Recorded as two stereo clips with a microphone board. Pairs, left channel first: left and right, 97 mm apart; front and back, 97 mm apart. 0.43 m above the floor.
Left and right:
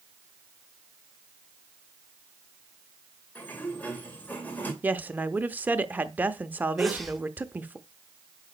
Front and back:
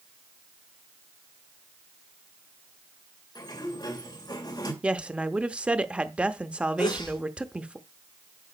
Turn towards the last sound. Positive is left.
turn(degrees=0)